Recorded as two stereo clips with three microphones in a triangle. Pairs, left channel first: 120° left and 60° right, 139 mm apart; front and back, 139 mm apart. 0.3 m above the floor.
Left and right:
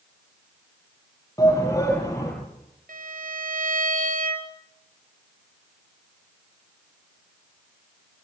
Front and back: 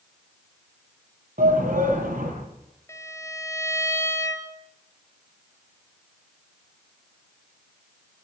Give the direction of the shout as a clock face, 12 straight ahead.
6 o'clock.